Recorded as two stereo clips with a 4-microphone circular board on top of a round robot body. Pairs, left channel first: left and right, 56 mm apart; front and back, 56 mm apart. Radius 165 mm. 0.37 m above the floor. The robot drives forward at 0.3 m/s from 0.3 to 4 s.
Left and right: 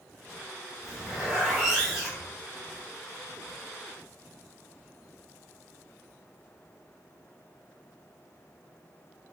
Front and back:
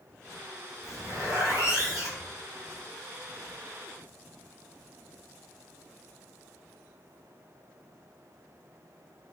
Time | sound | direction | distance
0.8 | a zipper | 170° right | 1.0 m